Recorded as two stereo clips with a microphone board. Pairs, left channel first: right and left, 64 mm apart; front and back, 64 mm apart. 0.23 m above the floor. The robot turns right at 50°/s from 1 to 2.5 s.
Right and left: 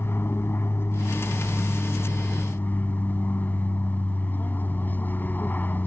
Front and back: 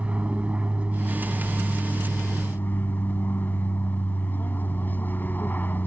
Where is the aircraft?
120° right; by 5.9 s 45° right.